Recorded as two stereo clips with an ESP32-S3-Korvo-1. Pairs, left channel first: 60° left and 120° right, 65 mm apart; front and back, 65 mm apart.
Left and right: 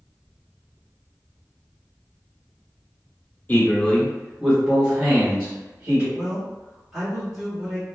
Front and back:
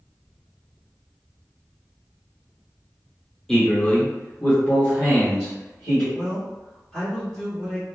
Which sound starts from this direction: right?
A man speaking, at 6.1 s.